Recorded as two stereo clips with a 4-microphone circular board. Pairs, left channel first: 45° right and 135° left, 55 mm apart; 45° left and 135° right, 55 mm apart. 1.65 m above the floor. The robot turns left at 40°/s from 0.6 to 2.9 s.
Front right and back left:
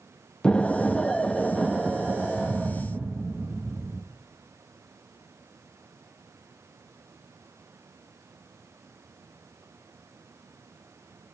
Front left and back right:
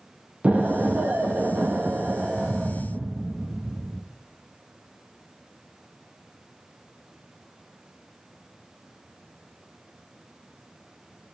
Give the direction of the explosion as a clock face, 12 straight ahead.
3 o'clock.